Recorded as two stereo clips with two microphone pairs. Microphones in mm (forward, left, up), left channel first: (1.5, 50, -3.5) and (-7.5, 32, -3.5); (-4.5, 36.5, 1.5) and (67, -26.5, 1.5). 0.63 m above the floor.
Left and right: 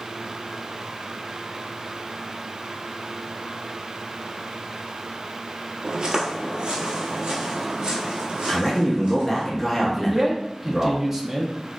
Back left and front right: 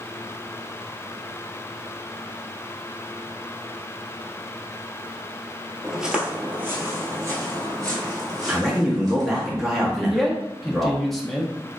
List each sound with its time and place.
5.8 s footsteps: 125° right, 0.7 m; by 9.5 s 85° right, 2.5 m
8.5 s a man speaking: 35° left, 1.0 m
10.0 s a man speaking: 135° right, 0.6 m